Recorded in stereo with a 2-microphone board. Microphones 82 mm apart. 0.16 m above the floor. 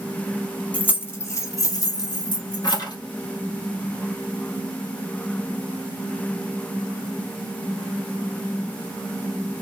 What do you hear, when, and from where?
0.7 s keys jangling: 20° left (ahead or behind), 0.7 m; by 3.0 s 60° left (ahead or behind), 1.4 m